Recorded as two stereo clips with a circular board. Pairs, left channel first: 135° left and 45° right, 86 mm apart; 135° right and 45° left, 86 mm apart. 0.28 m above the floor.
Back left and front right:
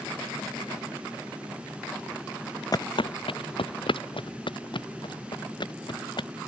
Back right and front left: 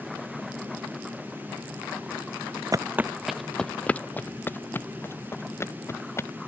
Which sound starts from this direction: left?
Footsteps, at 2.7 s.